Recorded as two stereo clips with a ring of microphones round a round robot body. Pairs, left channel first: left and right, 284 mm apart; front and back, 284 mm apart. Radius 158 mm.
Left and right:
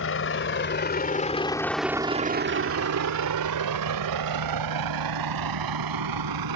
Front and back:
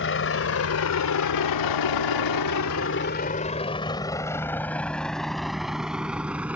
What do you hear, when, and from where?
0.0 s a vehicle: 45° left; by 6.6 s 95° right